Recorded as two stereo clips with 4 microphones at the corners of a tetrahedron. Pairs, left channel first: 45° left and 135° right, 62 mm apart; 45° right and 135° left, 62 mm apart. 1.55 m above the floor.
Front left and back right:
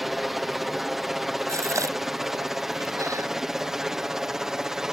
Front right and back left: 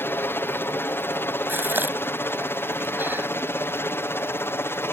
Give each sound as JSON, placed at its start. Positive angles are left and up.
{"t": 0.0, "sound": "a helicopter", "azimuth_deg": -50}
{"t": 1.5, "sound": "a gasp", "azimuth_deg": -170}